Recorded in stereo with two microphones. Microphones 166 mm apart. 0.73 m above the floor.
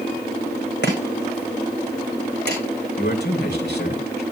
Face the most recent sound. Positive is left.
turn(degrees=80)